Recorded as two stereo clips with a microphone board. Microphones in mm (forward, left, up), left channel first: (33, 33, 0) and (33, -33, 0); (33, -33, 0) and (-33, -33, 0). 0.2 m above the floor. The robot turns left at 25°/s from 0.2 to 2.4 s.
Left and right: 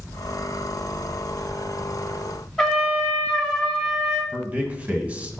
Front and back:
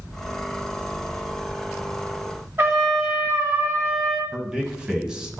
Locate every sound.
2.6 s a trumpet: 170° left, 1.6 m
4.3 s a man speaking: 120° right, 1.1 m